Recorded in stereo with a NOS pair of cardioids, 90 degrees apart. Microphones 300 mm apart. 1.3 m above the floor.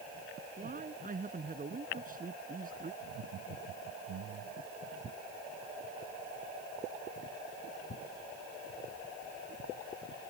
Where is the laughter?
65° right.